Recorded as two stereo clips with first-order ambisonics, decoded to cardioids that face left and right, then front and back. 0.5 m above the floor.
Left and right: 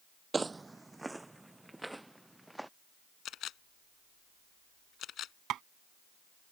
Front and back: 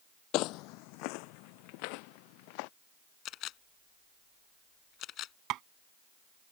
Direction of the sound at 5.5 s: 140° right.